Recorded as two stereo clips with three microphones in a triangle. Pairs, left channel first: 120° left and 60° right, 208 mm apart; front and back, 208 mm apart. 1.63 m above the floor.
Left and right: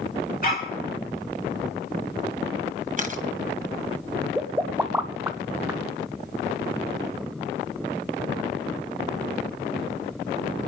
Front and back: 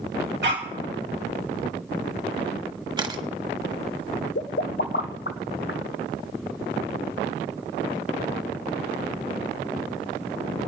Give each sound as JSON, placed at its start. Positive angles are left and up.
{"t": 0.4, "sound": "a dog barking", "azimuth_deg": 160, "distance_m": 2.5}
{"t": 3.0, "sound": "a camera shutter", "azimuth_deg": -110, "distance_m": 1.2}
{"t": 4.3, "sound": "a pop", "azimuth_deg": 20, "distance_m": 0.6}